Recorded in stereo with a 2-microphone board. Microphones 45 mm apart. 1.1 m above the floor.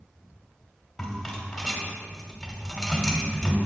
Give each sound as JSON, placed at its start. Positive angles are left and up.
{"t": 1.0, "sound": "a rattle", "side_deg": 0, "distance_m": 1.2}